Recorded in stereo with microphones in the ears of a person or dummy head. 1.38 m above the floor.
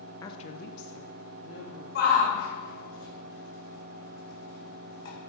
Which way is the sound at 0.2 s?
15° left (ahead or behind).